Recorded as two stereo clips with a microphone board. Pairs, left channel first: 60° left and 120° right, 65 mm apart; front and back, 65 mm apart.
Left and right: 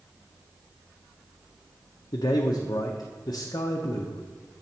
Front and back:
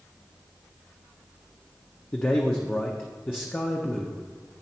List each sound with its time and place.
2.1 s a man speaking: 60° left, 0.5 m